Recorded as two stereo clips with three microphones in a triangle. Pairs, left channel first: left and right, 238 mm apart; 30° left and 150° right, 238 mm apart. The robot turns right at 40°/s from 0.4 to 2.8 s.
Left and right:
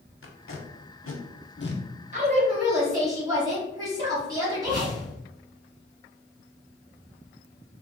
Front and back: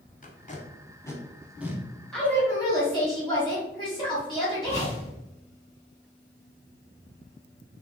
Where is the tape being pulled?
80° left, 0.6 m; by 1.8 s 135° left, 0.6 m.